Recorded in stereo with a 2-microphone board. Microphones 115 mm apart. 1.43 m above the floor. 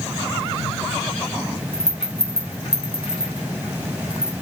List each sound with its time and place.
1.7 s a rattle: 45° left (ahead or behind), 3.5 m